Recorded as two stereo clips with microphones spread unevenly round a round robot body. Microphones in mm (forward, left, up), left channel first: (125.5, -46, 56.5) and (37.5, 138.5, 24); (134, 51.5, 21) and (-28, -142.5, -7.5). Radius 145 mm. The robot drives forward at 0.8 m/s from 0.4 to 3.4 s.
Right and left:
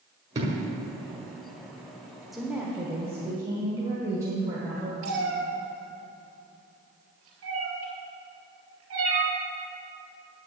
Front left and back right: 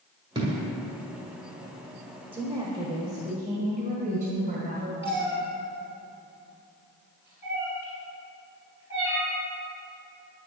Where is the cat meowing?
150° left, 3 m.